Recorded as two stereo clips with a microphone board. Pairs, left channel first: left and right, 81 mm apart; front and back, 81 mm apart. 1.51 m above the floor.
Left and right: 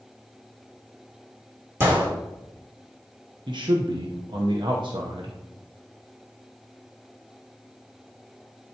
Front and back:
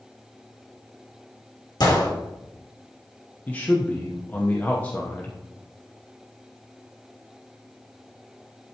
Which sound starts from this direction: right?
A man speaking, at 3.5 s.